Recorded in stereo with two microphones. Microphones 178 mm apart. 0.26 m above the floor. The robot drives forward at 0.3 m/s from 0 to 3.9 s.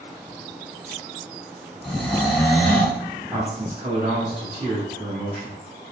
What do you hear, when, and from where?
1.8 s snoring: centre (ahead or behind), 1.0 m
3.3 s a man speaking: 10° right (ahead or behind), 1.7 m